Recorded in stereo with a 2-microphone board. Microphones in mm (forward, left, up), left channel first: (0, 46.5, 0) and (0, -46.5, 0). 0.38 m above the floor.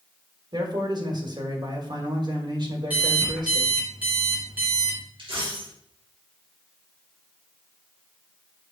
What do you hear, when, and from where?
0.5 s a man speaking: 50° right (ahead or behind), 1.7 m
2.9 s an alarm clock: 15° right (ahead or behind), 3 m
5.2 s a dropped coin: 60° right (ahead or behind), 3 m